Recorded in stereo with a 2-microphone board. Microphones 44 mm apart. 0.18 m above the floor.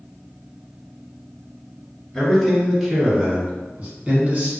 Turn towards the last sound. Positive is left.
turn(degrees=-40)  # may be behind; listen again after turning